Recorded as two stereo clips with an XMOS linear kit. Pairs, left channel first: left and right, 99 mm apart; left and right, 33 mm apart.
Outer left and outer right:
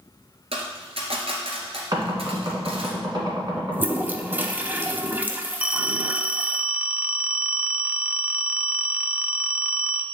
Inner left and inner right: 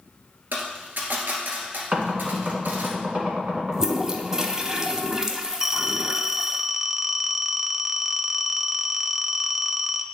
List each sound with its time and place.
0.5 s a dropped coin: 75° right (ahead or behind), 1.7 m
1.9 s knocking: 45° right (ahead or behind), 2.0 m
3.7 s a toilet flushing: 20° right (ahead or behind), 0.6 m
5.6 s a phone ringing: 10° right (ahead or behind), 0.5 m